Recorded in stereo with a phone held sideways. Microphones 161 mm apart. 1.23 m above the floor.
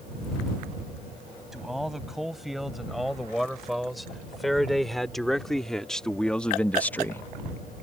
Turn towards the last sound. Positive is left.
turn(degrees=15)  # may be behind; listen again after turning